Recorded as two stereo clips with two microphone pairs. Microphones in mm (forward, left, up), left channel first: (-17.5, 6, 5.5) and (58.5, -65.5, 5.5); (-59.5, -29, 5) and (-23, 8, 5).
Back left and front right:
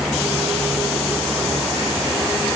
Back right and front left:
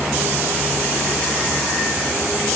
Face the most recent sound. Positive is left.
No sound to turn to.